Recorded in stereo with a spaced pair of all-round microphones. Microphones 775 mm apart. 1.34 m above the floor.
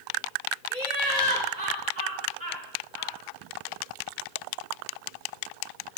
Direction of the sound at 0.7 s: 85° right.